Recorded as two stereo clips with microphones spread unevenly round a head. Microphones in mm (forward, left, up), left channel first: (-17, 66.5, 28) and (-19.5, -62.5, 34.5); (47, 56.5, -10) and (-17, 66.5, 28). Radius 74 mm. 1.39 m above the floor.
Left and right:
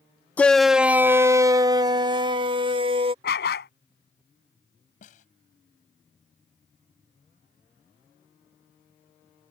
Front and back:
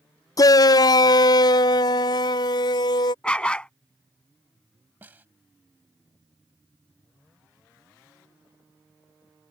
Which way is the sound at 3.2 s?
75° left.